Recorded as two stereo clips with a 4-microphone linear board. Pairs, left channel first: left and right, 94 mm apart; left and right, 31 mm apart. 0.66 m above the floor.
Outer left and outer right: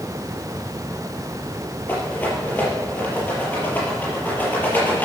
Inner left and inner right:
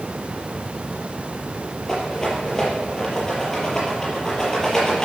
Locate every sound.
1.9 s a rattle: 20° left (ahead or behind), 6 m